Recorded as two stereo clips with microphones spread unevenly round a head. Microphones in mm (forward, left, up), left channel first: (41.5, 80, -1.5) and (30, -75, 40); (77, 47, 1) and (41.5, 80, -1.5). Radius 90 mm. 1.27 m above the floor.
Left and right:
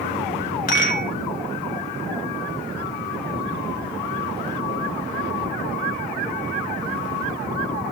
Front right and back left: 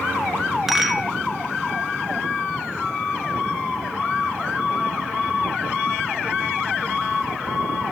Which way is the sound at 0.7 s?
50° left.